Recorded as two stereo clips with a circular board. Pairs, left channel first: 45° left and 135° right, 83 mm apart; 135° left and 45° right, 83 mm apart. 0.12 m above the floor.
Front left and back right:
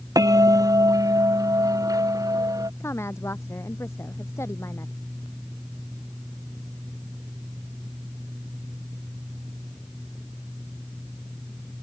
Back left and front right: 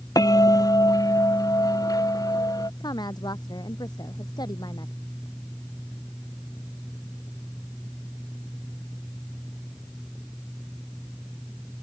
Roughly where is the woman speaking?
Left.